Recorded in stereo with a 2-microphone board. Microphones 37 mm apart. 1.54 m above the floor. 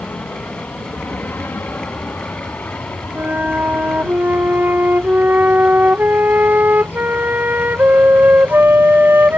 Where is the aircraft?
60° left (ahead or behind); by 9.4 s 70° left (ahead or behind).